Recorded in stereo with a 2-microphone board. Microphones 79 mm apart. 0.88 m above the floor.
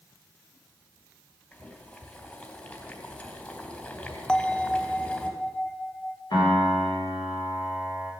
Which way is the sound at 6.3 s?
65° left (ahead or behind).